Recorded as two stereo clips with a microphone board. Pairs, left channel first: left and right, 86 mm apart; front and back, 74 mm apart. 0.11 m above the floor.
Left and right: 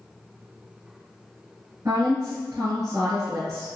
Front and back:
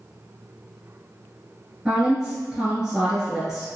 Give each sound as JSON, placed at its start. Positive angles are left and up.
{"t": 1.9, "sound": "a woman speaking", "azimuth_deg": -105, "distance_m": 1.8}